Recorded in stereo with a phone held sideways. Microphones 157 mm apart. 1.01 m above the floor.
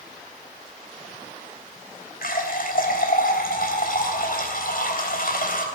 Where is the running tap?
70° left (ahead or behind), 3 m.